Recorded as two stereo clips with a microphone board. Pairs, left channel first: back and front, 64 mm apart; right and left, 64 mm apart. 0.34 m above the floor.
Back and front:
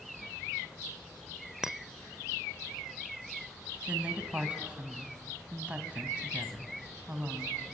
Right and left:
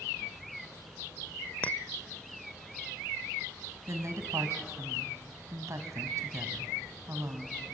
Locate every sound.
1.6 s a clink: 70° right, 0.5 m
3.9 s a woman speaking: 70° left, 2.5 m